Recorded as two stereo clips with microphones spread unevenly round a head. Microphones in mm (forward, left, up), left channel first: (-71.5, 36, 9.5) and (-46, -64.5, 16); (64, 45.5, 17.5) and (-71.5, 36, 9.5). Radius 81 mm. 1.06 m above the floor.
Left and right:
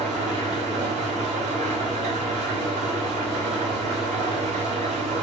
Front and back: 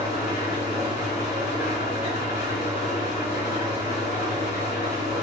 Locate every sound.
0.0 s an engine running: 50° right, 2.5 m